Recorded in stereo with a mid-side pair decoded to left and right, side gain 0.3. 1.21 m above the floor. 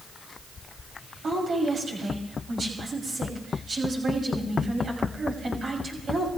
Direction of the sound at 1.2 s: 70° right.